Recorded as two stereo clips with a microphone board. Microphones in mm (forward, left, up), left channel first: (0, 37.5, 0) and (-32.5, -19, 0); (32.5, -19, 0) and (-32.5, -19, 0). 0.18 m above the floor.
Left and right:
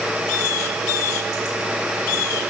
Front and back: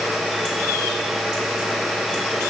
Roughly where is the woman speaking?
I don't hear a woman speaking.